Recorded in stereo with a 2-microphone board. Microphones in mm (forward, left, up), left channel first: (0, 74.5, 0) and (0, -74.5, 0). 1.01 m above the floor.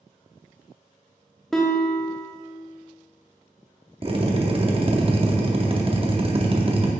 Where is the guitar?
5° left (ahead or behind), 0.7 m.